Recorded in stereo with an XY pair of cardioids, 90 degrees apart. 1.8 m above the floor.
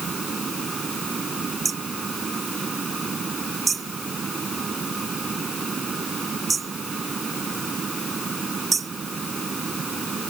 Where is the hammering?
40° right.